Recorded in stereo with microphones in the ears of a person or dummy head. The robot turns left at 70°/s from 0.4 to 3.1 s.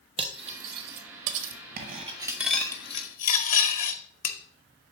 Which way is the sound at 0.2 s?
30° right (ahead or behind).